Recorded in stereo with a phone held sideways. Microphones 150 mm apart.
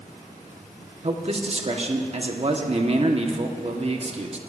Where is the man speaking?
40° right (ahead or behind), 1.1 m.